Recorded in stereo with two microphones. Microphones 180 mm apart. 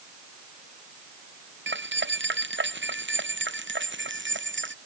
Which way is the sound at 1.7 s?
80° right.